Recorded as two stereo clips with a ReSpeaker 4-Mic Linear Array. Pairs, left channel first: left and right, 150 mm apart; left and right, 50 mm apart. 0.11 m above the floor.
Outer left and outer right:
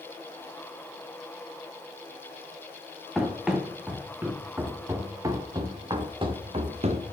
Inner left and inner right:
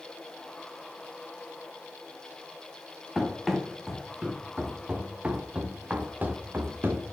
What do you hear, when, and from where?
3.1 s running footsteps: centre (ahead or behind), 3 m; by 7.1 s 45° right (ahead or behind), 1.9 m